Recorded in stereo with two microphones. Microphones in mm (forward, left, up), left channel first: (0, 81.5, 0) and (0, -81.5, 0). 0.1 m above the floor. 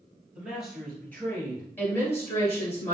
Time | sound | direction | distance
0.3 | a man speaking | 10° right (ahead or behind) | 1.6 m
1.8 | a woman speaking | 20° left (ahead or behind) | 1.7 m